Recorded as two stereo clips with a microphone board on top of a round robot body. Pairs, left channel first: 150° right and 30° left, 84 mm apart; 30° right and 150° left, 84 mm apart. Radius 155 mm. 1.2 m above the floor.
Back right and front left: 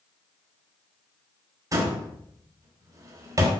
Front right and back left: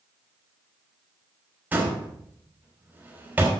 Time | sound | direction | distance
1.7 | a door slam | 80° left | 3 m